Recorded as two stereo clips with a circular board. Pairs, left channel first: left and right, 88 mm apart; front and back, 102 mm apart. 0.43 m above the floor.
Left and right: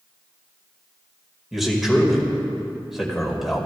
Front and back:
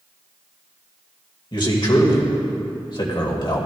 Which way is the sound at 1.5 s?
5° right.